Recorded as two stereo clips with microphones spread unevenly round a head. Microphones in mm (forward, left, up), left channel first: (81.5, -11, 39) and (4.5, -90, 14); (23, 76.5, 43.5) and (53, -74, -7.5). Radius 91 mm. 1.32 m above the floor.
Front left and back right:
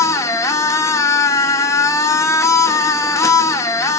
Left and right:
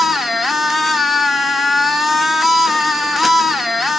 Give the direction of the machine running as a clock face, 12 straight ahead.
11 o'clock.